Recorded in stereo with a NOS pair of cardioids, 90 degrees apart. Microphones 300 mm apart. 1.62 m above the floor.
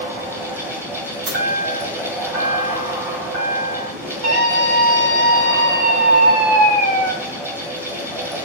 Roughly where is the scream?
Ahead right.